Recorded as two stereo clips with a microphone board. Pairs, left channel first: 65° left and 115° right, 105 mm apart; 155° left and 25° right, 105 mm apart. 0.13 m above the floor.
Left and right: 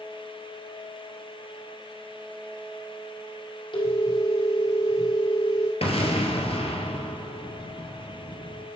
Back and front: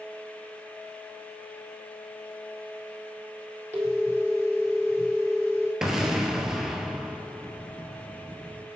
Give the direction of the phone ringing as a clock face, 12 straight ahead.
11 o'clock.